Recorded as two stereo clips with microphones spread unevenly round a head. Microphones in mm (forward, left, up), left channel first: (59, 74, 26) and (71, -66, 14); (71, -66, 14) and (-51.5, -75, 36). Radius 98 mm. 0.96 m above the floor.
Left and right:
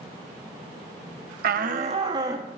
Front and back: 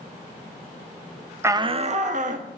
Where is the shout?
100° right, 0.6 m; by 2.5 s 160° right, 1.4 m.